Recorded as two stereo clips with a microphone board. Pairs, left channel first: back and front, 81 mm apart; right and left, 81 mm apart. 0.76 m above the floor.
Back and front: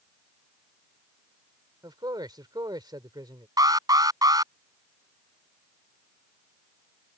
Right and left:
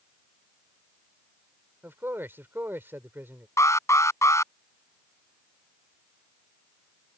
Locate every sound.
1.8 s a man speaking: 30° left
3.6 s an alarm: 40° right